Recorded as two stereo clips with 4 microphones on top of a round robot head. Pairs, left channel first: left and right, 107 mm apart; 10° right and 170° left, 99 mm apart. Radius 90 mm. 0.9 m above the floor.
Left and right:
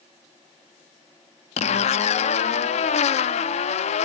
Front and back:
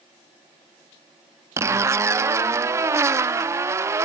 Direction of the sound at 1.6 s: 110° left.